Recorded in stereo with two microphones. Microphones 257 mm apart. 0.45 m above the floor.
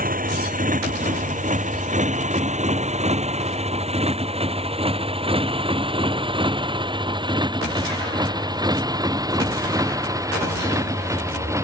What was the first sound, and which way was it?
A motorcycle, 30° right (ahead or behind).